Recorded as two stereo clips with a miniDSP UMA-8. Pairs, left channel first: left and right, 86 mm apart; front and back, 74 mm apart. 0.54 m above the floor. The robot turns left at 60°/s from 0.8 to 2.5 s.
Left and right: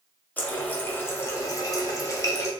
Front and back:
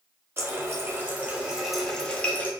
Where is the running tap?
150° left, 0.6 m; by 2.5 s 45° left, 0.6 m.